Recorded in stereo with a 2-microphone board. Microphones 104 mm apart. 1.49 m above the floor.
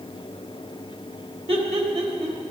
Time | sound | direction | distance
1.5 | laughter | 70° right (ahead or behind) | 2.5 m